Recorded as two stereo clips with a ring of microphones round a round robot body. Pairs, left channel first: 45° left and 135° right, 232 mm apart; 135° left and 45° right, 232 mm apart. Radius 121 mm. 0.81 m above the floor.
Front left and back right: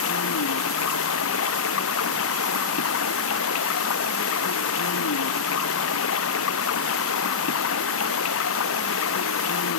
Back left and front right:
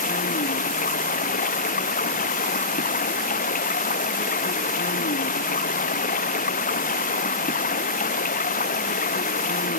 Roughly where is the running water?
Left.